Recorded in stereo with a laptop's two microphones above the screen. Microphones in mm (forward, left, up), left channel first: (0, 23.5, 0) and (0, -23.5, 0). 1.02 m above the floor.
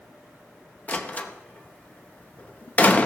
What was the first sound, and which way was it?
A door slam, 30° left (ahead or behind).